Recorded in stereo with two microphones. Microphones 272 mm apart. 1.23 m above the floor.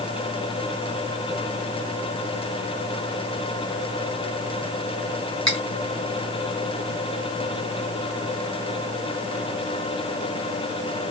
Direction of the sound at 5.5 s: 75° right (ahead or behind).